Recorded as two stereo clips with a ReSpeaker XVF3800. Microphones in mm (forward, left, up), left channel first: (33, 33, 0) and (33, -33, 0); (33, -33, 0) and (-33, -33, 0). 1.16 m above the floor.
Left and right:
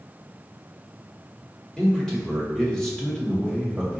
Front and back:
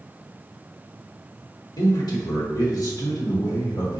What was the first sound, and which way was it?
A man speaking, 10° left.